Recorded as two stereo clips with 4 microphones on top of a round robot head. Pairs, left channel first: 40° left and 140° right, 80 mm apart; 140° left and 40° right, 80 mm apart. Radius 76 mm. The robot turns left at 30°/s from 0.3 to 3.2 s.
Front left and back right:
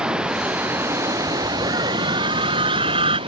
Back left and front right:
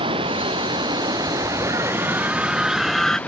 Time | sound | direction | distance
0.0 | running water | 60° right | ?
1.6 | a scream | 90° right | ?